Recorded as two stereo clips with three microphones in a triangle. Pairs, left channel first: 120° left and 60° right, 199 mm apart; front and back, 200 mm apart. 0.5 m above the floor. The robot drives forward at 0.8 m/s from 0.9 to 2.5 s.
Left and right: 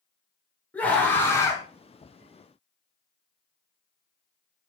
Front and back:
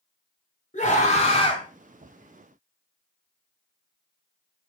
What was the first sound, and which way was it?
A scream, 40° left.